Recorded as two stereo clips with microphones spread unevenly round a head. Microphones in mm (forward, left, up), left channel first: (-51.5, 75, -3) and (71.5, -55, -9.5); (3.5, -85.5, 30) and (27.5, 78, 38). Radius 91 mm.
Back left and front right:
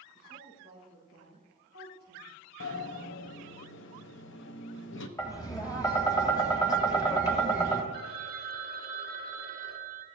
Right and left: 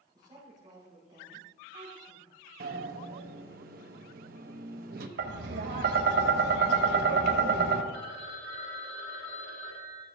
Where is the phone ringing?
85° right, 1.7 m.